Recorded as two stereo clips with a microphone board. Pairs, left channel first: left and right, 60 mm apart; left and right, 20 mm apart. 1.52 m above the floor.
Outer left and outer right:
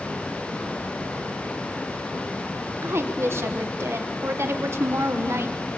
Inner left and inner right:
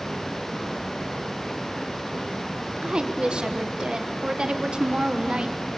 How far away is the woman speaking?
About 1.4 m.